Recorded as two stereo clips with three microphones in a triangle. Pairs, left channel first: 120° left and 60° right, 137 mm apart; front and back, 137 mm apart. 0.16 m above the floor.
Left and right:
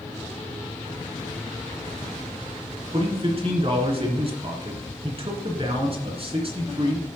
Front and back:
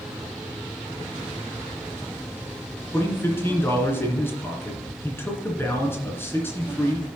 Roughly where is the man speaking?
Ahead right.